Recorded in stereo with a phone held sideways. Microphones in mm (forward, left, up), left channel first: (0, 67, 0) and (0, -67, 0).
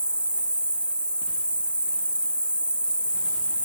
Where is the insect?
10° right (ahead or behind), 1.0 m.